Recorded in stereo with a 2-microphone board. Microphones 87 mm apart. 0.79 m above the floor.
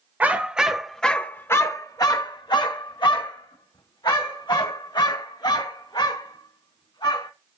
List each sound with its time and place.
0.2 s a dog barking: 15° right (ahead or behind), 1.0 m; by 7.3 s 75° left (ahead or behind), 3.5 m